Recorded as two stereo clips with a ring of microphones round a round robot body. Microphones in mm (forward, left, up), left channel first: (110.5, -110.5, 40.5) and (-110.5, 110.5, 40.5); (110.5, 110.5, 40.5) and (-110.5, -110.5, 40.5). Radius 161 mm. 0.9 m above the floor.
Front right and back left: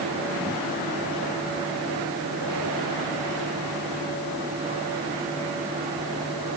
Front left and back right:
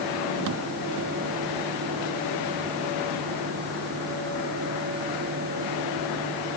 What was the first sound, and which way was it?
Only background noise.